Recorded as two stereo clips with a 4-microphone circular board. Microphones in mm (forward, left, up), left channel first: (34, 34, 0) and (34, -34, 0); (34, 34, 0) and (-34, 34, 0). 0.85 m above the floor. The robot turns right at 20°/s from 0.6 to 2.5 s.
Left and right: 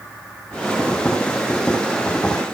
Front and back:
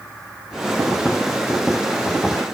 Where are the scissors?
I don't hear scissors.